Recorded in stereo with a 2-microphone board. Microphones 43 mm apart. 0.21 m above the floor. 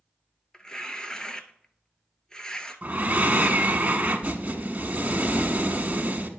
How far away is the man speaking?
I don't hear a man speaking.